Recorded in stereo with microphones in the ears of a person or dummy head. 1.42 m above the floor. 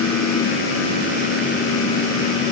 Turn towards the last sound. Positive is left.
No sound to turn to.